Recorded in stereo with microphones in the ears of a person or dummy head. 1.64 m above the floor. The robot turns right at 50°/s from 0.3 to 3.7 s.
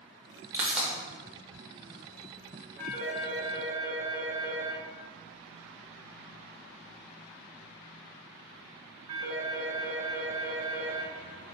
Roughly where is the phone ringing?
Centre.